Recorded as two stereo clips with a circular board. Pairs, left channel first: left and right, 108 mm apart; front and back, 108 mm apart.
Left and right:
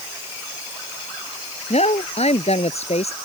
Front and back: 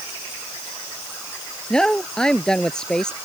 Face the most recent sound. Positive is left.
turn(degrees=85)